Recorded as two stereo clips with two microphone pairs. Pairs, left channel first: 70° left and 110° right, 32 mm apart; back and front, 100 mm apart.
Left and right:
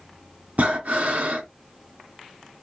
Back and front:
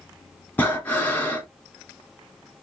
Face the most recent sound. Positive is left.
turn(degrees=-115)